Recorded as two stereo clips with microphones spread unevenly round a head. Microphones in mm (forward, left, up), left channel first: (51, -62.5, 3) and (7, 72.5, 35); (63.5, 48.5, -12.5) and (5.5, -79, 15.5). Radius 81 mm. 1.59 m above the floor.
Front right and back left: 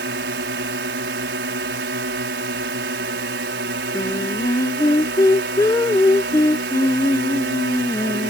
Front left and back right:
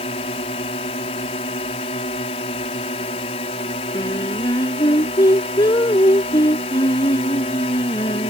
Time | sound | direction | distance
0.0 | a drone | 125° left | ?
3.9 | singing | straight ahead | ?